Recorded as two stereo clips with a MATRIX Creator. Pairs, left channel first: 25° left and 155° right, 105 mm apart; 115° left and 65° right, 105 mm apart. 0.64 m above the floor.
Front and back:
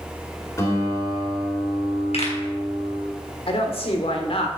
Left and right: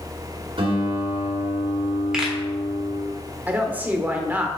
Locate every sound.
0.6 s a guitar: 35° right, 2 m
2.1 s a pop: 15° left, 3 m
3.5 s a woman speaking: 5° left, 1.7 m